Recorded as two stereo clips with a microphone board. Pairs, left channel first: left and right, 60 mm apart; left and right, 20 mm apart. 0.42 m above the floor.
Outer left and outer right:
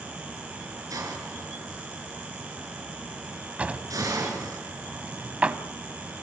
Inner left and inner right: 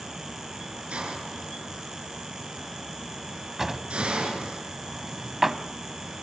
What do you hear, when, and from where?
0.9 s a hiss: 80° right, 5.5 m
3.6 s a drawer: 20° right (ahead or behind), 1.0 m